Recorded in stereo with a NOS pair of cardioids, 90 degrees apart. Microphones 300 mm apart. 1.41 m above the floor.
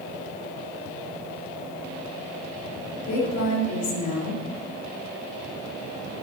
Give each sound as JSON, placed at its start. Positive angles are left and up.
{"t": 3.1, "sound": "a woman speaking", "azimuth_deg": 65, "distance_m": 3.5}